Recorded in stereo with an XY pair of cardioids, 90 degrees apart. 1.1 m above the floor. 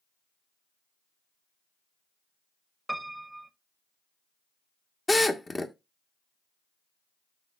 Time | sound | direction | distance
2.9 | a piano | 5° right | 1.0 m
5.1 | a drill | 25° left | 1.2 m